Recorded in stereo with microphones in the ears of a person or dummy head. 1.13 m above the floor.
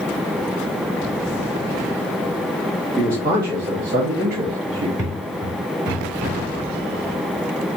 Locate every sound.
3.0 s a man speaking: 20° right (ahead or behind), 1.7 m; by 4.9 s 55° right (ahead or behind), 0.8 m
5.0 s footsteps: 20° right (ahead or behind), 1.1 m; by 6.4 s 15° right (ahead or behind), 2 m